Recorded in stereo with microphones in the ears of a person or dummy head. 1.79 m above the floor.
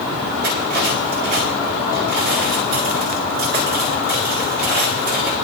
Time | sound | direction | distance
0.4 | cutlery clinking | 55° right (ahead or behind) | 2.5 m